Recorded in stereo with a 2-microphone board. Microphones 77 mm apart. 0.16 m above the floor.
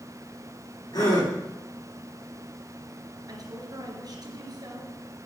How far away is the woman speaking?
About 3.5 m.